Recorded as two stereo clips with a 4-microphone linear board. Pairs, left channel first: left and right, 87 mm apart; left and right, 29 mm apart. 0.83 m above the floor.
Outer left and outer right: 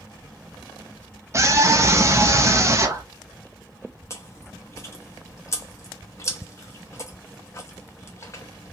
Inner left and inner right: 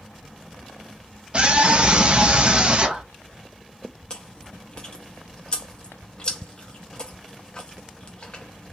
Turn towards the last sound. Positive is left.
turn(degrees=35)  # may be behind; listen again after turning